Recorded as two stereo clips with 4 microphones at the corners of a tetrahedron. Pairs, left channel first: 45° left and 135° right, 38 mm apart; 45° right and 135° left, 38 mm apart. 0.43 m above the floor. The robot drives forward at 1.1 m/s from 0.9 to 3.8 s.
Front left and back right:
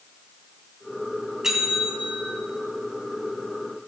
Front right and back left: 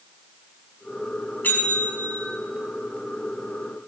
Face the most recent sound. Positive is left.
turn(degrees=-115)